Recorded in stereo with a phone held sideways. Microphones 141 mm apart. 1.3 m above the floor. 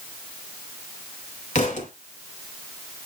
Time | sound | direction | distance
1.6 | a thud | 60° left (ahead or behind) | 2.5 m